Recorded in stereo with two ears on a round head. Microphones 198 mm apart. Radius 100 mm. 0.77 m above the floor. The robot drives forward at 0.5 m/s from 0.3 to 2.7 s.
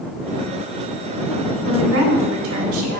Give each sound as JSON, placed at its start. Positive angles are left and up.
{"t": 1.7, "sound": "a woman speaking", "side_deg": -60, "distance_m": 1.7}